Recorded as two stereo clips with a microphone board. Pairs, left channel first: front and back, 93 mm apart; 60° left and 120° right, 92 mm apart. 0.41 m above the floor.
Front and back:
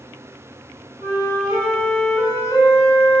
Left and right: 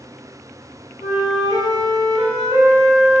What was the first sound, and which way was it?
A flute, 85° right.